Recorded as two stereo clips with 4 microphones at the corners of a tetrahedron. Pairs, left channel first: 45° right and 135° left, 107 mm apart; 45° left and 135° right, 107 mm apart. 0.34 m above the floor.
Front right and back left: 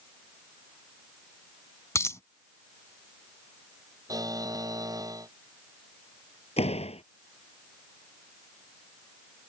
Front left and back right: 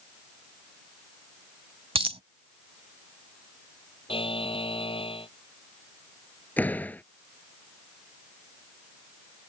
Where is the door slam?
30° right.